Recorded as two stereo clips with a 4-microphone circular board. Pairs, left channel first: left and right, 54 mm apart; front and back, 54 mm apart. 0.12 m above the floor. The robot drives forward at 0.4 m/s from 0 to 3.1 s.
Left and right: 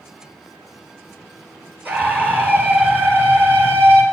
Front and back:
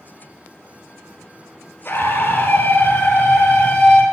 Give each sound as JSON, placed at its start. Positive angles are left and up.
{"t": 1.9, "sound": "a scream", "azimuth_deg": -40, "distance_m": 3.0}